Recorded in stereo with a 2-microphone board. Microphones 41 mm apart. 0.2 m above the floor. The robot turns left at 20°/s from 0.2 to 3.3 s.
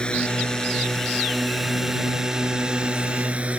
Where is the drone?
30° left; by 3.6 s 35° right.